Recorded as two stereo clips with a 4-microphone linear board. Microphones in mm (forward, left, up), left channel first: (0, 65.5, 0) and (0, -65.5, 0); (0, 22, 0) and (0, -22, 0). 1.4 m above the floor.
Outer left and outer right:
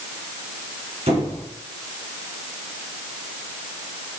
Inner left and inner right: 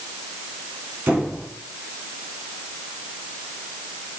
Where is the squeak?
70° right (ahead or behind), 3.5 m.